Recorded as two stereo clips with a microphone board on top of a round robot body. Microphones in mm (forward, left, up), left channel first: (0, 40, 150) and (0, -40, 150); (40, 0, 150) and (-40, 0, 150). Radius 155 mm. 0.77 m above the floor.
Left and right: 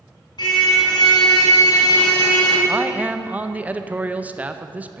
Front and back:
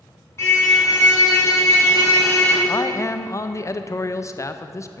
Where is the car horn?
60° left, 4.5 m.